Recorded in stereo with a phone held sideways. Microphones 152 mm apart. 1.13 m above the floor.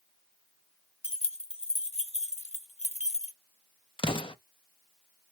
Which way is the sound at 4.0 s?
35° left (ahead or behind).